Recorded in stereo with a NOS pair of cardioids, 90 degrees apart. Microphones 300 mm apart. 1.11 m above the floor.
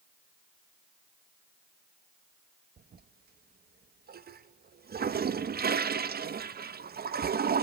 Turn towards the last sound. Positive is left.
turn(degrees=-30)